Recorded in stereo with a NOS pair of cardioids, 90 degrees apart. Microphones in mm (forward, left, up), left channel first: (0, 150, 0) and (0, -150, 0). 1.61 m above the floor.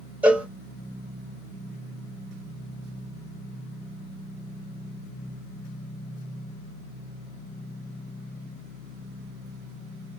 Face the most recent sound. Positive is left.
turn(degrees=-5)